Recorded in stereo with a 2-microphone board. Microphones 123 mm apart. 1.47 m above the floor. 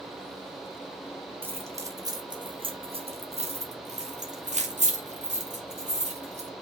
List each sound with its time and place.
1.4 s keys jangling: 20° right (ahead or behind), 1.5 m; by 6.5 s 70° right (ahead or behind), 3 m